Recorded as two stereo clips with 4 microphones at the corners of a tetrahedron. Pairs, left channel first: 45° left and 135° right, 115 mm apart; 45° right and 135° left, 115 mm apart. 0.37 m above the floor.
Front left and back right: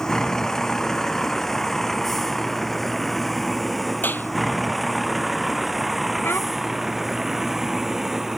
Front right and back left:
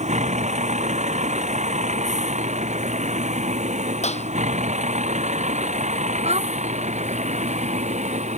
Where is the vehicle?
130° left; by 8.4 s 140° left.